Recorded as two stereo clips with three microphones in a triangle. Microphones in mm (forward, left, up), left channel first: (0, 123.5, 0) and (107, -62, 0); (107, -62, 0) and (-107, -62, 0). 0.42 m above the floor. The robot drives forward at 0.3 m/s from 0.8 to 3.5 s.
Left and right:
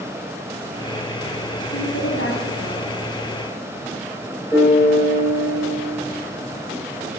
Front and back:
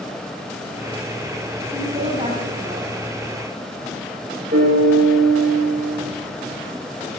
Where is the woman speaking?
120° left, 2.5 m; by 2.9 s 125° left, 2.5 m.